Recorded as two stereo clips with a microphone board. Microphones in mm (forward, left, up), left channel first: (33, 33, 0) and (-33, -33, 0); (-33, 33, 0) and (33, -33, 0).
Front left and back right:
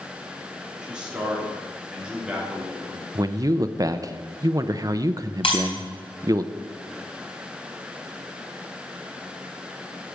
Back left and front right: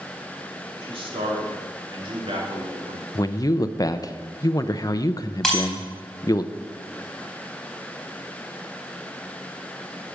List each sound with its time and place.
0.8 s a man speaking: 55° right, 3 m
3.1 s a man speaking: straight behind, 0.6 m
5.4 s breaking glass: 50° left, 3.5 m